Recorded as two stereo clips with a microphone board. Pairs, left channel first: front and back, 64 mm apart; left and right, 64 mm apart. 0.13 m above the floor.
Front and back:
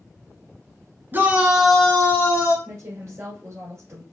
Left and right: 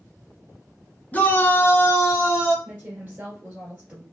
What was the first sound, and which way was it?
A shout, 145° left.